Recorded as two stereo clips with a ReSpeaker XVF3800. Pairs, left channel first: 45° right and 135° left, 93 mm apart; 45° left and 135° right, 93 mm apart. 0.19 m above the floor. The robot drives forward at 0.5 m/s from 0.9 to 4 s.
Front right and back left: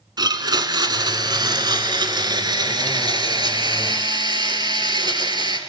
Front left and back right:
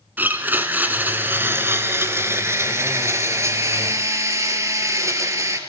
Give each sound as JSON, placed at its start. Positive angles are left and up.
{"t": 0.2, "sound": "a blender", "azimuth_deg": 160, "distance_m": 1.8}